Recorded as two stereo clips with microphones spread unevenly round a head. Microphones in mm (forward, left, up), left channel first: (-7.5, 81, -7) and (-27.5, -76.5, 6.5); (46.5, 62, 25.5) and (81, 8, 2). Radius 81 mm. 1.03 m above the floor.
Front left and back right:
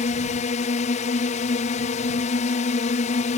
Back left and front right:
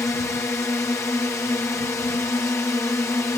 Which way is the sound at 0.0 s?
75° left.